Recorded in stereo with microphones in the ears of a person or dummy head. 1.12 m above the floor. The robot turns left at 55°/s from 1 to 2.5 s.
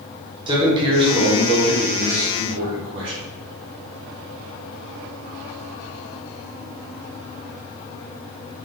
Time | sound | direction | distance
0.5 | a man speaking | 30° right | 1.3 m